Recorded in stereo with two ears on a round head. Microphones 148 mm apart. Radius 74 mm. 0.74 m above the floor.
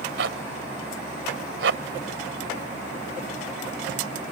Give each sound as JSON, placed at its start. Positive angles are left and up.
{"t": 0.2, "sound": "a zipper", "side_deg": -80}